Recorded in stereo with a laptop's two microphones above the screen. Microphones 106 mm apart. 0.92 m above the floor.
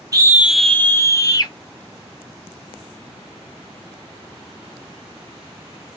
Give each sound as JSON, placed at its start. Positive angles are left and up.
{"t": 0.1, "sound": "a scream", "side_deg": -35, "distance_m": 0.6}